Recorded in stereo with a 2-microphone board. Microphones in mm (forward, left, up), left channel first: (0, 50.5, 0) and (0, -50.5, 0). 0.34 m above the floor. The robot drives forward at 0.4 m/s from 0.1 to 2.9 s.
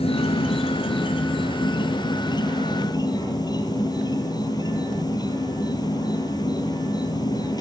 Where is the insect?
75° left (ahead or behind), 1.3 m; by 7.6 s 40° left (ahead or behind), 1.9 m.